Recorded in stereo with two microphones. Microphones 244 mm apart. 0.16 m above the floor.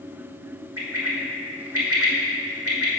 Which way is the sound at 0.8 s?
70° right (ahead or behind).